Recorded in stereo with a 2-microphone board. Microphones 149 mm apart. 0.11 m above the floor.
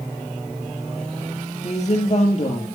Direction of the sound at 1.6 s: 50° left (ahead or behind).